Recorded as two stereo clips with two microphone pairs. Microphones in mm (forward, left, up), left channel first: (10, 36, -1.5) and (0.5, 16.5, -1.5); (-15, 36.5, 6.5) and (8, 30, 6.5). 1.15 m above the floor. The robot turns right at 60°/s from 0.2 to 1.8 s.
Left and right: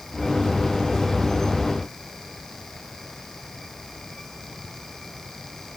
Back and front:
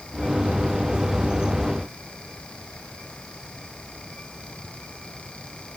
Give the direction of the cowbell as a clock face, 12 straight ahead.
I don't hear a cowbell.